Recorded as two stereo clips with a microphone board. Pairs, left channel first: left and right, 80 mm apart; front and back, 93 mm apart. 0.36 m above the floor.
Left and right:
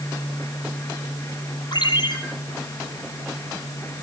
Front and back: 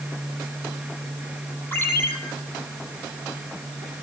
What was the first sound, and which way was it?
A ringtone, 70° left.